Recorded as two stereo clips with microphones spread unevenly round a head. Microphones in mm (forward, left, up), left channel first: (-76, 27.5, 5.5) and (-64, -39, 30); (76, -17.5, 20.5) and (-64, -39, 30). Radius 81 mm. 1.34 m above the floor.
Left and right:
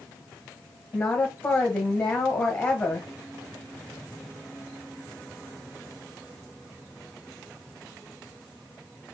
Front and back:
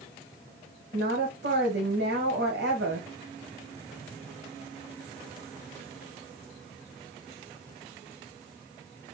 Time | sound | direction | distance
0.9 | a woman speaking | 170° left | 1.2 m